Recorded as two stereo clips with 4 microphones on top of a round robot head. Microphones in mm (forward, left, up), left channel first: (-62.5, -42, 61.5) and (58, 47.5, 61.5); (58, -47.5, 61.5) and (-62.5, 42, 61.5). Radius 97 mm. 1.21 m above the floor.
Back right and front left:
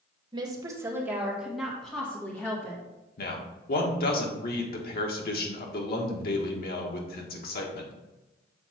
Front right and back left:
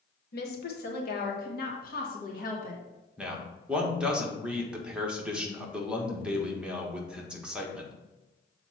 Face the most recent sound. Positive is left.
turn(degrees=-135)